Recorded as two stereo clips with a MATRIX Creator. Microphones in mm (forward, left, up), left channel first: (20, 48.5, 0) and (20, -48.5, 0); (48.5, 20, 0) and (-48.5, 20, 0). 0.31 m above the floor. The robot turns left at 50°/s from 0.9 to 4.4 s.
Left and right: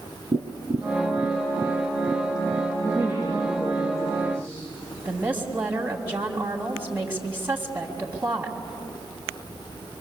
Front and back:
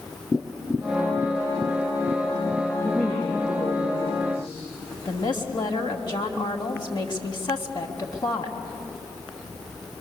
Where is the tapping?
95° right, 3 m; by 2.7 s 175° left, 3 m.